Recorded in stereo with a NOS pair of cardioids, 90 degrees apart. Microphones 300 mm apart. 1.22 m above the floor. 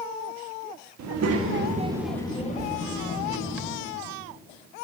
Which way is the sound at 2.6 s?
25° right.